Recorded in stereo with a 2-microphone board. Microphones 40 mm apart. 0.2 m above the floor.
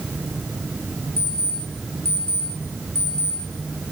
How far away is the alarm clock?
About 2.5 m.